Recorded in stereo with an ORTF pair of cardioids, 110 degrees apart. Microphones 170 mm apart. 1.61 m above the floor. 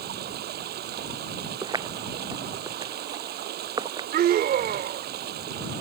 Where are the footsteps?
25° right.